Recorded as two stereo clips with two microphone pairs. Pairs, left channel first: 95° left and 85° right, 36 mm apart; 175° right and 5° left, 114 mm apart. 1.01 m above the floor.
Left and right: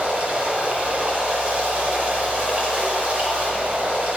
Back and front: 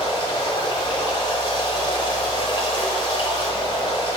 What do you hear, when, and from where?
0.0 s running water: 140° right, 1.5 m